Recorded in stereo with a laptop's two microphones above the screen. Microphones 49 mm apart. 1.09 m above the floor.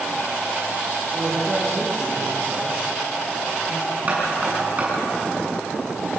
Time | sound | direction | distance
1.1 | a man speaking | 10° right (ahead or behind) | 8.5 m
4.1 | knocking | 30° right (ahead or behind) | 9 m